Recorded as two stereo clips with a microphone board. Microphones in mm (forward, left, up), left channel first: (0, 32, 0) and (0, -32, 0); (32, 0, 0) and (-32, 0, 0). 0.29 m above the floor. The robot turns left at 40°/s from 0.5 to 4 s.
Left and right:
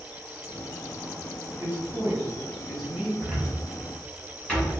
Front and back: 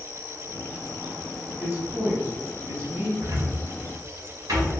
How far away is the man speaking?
About 1.1 m.